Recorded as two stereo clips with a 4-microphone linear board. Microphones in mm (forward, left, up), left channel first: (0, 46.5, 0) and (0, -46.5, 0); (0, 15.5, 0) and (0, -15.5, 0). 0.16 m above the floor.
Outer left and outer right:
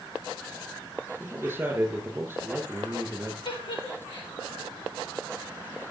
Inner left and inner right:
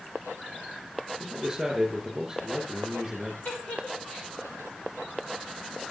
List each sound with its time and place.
1.2 s a man speaking: 20° right (ahead or behind), 6 m
3.5 s a giggle: 60° left (ahead or behind), 3 m